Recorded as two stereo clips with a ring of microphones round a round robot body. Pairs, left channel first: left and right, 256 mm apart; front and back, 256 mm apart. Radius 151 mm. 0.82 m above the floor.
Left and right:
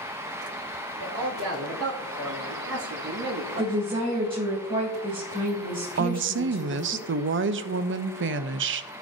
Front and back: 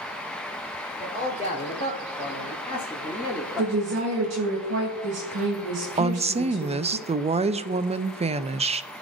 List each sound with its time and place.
1.0 s a man speaking: 65° right, 3 m; by 3.8 s 100° right, 2.5 m
3.6 s a woman speaking: 160° right, 1.7 m
6.0 s a woman speaking: 115° right, 0.6 m